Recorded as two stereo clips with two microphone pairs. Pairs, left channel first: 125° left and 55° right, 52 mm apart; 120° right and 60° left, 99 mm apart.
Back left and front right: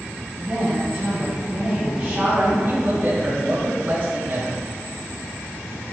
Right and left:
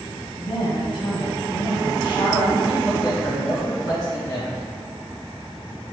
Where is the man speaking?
85° right, 1.9 m.